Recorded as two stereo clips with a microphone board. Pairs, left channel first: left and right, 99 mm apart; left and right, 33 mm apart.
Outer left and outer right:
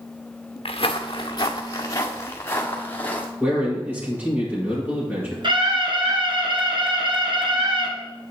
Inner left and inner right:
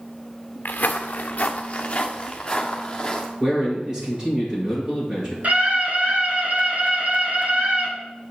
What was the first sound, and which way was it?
Footsteps, 65° left (ahead or behind).